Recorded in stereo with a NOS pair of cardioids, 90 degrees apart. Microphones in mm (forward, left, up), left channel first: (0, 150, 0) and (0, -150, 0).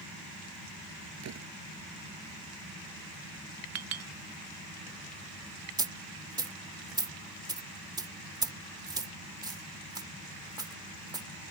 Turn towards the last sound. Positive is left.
turn(degrees=-15)